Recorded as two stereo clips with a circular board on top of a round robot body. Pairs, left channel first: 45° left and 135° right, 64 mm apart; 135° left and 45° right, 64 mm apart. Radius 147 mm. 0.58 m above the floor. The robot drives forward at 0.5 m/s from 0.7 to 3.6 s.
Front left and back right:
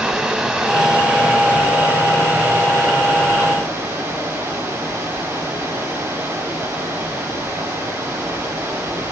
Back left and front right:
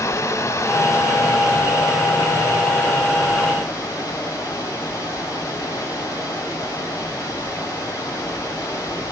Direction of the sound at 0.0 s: 145° left.